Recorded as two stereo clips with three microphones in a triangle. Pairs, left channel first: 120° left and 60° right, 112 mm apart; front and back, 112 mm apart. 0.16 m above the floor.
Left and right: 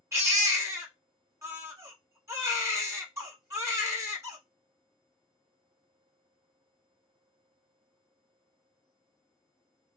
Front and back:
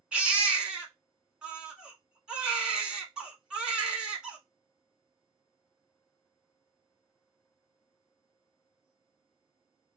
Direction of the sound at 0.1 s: 105° right.